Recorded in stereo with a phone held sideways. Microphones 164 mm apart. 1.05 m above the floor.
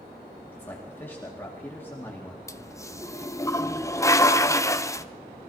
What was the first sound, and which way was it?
A man speaking, 10° left (ahead or behind).